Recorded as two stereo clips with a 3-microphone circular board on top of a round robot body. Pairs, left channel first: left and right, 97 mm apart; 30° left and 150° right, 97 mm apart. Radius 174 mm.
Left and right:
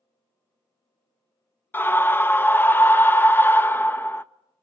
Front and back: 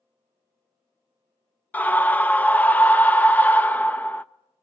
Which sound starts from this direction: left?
A scream, at 1.7 s.